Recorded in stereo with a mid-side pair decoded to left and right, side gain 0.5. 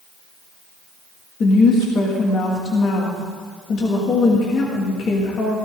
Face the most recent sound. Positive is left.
turn(degrees=50)